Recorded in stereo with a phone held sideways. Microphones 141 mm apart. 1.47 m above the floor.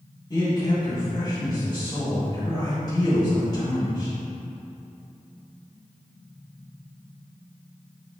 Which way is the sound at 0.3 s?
25° left (ahead or behind).